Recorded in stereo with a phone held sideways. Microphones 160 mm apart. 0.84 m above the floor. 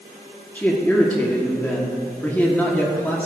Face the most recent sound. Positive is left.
turn(degrees=10)  # may be behind; listen again after turning